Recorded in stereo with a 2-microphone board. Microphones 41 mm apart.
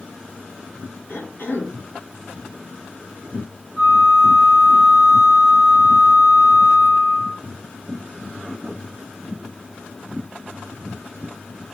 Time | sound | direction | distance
1.1 | a cough | 70° left (ahead or behind) | 3 m
3.8 | a flute | 80° left | 4.5 m